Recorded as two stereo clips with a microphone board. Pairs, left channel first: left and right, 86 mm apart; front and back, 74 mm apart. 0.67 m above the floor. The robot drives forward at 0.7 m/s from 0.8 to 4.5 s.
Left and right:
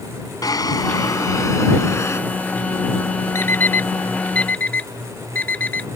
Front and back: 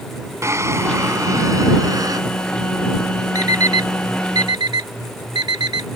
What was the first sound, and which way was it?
A drawer, 135° left.